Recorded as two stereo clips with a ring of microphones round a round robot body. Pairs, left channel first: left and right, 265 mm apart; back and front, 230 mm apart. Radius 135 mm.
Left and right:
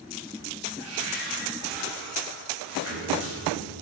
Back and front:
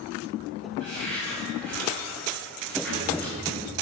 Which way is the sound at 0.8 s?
50° right.